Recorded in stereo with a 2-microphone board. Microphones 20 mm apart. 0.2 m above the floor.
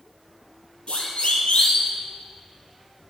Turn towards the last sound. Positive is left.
turn(degrees=75)  # may be behind; listen again after turning